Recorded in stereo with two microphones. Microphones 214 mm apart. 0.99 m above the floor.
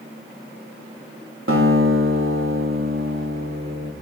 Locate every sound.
1.5 s a guitar: 75° right (ahead or behind), 1.8 m